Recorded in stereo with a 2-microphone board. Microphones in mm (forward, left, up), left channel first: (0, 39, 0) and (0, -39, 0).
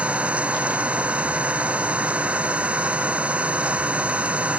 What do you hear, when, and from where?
0.0 s an engine running: 15° right (ahead or behind)